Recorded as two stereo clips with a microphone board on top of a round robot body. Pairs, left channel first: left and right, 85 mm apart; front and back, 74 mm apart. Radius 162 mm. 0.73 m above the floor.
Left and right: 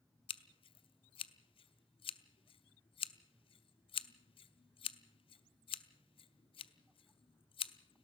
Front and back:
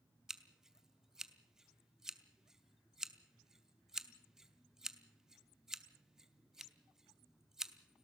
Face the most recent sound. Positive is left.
turn(degrees=95)